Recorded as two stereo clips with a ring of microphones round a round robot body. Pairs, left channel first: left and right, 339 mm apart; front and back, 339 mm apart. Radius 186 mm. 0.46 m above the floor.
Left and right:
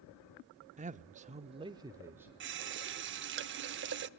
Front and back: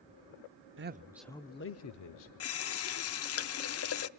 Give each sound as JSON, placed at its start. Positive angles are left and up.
{"t": 0.8, "sound": "a man speaking", "azimuth_deg": -150, "distance_m": 1.0}
{"t": 2.4, "sound": "a running tap", "azimuth_deg": -40, "distance_m": 0.7}